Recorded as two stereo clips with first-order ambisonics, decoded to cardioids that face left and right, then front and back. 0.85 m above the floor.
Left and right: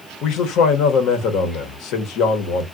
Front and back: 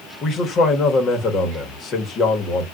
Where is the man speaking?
55° left, 0.9 m.